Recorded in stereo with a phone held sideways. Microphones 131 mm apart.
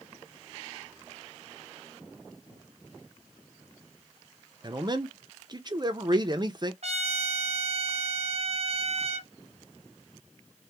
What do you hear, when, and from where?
4.6 s a man speaking: 35° right (ahead or behind), 0.5 m
6.8 s a trumpet: 55° right (ahead or behind), 0.7 m